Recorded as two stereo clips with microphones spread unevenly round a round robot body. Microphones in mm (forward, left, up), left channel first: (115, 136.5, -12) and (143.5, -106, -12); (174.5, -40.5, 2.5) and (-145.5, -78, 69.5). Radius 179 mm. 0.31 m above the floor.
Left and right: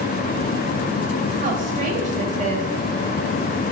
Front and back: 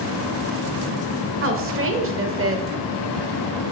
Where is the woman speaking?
130° right, 1.5 m.